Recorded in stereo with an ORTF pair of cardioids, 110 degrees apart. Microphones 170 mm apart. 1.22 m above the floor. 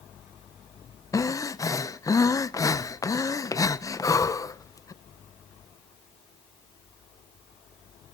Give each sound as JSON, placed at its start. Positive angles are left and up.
{"t": 1.1, "sound": "breathing", "azimuth_deg": 20, "distance_m": 0.6}